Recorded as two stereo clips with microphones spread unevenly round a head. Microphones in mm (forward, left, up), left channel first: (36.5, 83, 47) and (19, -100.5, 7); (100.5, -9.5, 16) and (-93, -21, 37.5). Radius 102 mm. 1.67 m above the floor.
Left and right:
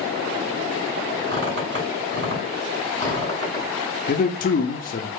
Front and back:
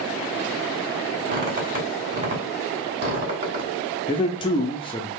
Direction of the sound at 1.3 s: 140° right.